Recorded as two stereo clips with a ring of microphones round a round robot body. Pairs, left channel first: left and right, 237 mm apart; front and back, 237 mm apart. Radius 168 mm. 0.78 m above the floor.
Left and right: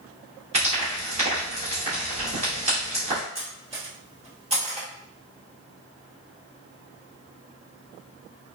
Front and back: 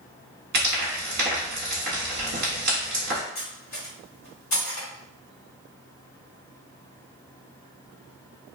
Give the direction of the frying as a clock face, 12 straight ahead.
5 o'clock.